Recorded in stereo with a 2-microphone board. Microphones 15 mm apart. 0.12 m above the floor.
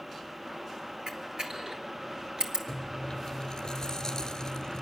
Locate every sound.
1.1 s a camera shutter: 55° right (ahead or behind), 1.4 m
2.7 s chewing: 50° left (ahead or behind), 1.0 m